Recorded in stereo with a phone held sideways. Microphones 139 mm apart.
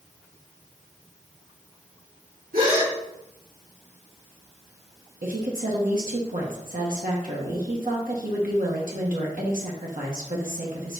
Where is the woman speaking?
80° right, 1.2 m.